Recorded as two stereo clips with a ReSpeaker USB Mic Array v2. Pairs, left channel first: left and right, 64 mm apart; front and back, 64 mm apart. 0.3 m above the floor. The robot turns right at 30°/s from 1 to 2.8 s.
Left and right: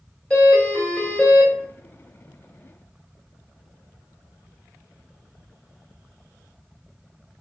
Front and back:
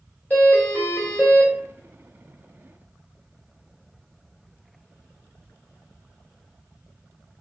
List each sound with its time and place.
0.3 s a doorbell: 30° left, 1.7 m; by 1.5 s 45° left, 1.7 m